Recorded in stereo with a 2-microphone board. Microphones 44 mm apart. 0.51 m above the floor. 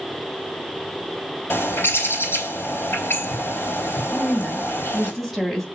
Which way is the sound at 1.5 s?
60° left (ahead or behind).